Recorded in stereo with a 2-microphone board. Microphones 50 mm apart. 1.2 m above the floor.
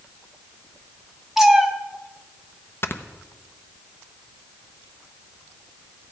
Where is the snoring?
45° left (ahead or behind), 0.7 m.